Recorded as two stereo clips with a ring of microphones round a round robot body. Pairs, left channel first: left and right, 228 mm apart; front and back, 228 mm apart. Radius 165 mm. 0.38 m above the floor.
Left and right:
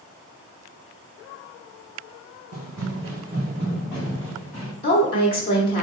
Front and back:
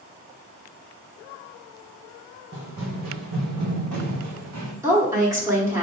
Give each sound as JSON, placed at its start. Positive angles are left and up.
{"t": 2.5, "sound": "running footsteps", "azimuth_deg": -130, "distance_m": 1.3}
{"t": 4.8, "sound": "a woman speaking", "azimuth_deg": 120, "distance_m": 1.4}